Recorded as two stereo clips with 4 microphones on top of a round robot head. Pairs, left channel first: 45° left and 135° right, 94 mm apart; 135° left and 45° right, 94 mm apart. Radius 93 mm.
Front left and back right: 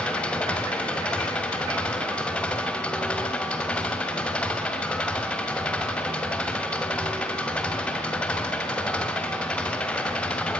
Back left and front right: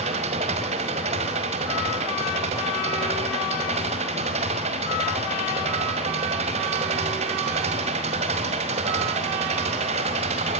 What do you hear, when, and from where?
0.0 s an engine running: 35° right, 2.5 m